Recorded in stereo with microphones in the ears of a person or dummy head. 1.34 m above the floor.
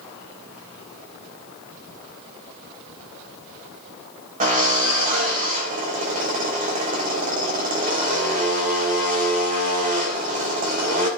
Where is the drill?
40° right (ahead or behind), 4 m.